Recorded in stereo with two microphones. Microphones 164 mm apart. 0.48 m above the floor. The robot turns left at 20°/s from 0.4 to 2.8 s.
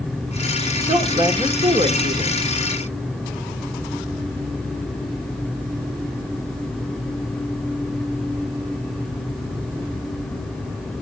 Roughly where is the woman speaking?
Ahead right.